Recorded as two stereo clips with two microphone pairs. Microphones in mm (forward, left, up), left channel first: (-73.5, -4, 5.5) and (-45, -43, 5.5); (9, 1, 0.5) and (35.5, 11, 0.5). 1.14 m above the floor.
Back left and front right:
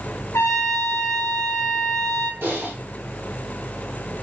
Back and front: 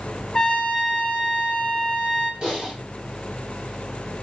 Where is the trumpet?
135° left, 0.8 m.